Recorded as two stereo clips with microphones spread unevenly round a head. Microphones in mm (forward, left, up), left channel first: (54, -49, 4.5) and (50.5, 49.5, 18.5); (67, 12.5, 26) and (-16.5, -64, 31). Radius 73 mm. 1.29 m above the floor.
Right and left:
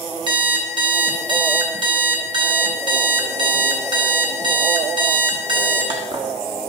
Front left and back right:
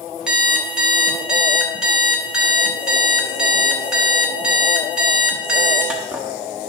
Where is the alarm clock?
140° left, 1.2 m.